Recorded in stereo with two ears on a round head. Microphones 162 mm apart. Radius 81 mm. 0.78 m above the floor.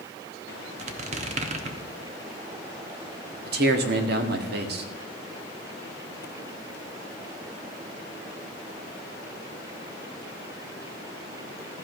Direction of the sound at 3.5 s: 60° right (ahead or behind).